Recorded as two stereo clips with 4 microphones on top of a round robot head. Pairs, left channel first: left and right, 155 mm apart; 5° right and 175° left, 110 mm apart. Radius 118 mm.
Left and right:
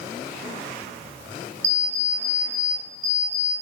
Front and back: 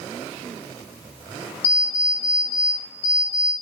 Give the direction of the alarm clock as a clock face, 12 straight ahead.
1 o'clock.